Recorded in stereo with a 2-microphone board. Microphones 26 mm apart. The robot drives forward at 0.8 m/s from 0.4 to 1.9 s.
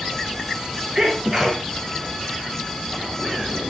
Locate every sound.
0.9 s a sneeze: 20° right (ahead or behind), 2 m